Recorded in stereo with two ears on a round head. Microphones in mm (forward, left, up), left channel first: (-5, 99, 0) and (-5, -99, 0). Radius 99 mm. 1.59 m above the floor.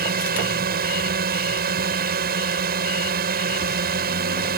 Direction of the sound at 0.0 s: 45° right (ahead or behind).